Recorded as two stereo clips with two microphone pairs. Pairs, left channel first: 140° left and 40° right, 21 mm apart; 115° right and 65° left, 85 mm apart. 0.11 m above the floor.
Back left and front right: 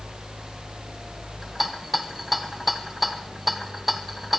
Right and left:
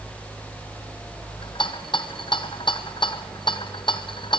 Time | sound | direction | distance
1.4 | a rattle | 125° right | 1.1 m